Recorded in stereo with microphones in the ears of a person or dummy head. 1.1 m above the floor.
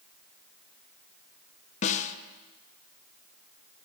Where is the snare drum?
30° left (ahead or behind), 0.6 m.